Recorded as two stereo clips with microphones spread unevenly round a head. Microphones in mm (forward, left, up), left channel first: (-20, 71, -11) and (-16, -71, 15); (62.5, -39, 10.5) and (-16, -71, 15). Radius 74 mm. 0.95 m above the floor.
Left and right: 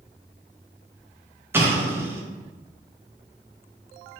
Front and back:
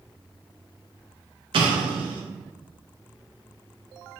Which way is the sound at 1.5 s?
165° right.